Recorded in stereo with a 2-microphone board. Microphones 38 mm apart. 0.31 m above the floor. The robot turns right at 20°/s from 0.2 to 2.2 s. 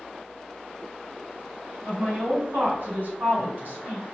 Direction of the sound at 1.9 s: 50° right (ahead or behind).